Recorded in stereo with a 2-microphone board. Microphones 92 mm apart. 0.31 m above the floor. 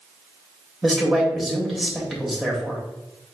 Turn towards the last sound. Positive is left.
turn(degrees=-5)  # may be behind; listen again after turning